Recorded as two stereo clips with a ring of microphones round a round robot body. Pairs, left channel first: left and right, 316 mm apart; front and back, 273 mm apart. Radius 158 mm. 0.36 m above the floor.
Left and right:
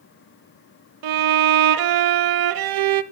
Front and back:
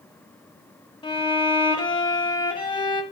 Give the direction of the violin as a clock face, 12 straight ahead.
3 o'clock.